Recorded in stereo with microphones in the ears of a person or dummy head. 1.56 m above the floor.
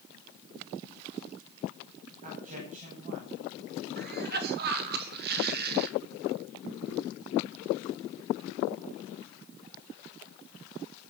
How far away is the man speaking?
About 9.5 m.